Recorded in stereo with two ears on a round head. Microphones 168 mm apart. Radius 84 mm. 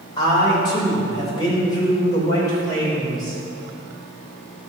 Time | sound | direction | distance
0.2 | a man speaking | 25° left (ahead or behind) | 3.5 m